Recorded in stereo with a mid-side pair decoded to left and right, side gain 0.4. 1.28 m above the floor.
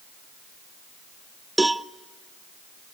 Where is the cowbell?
15° right, 0.6 m.